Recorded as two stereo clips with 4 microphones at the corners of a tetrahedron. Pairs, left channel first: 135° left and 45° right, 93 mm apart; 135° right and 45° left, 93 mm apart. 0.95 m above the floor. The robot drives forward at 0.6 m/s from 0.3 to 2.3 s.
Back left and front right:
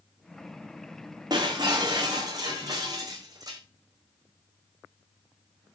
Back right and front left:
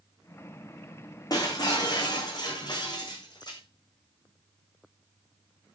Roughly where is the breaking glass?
Right.